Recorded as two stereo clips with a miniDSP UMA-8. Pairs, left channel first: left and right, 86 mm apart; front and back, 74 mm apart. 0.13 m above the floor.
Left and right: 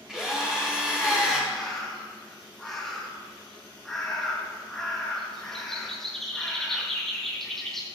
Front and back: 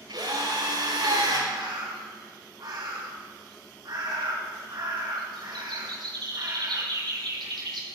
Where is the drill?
175° right, 9 m.